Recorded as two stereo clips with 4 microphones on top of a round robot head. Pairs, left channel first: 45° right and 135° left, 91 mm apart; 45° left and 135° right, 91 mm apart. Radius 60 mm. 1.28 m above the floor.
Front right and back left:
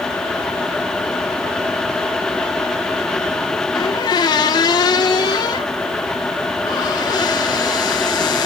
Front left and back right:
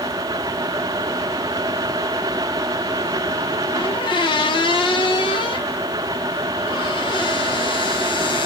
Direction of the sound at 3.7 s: 5° left.